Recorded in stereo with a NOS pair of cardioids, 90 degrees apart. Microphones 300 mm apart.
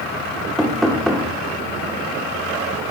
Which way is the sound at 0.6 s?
Straight ahead.